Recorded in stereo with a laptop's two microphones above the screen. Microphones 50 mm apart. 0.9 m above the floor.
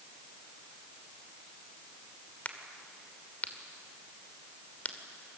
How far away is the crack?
About 2.5 m.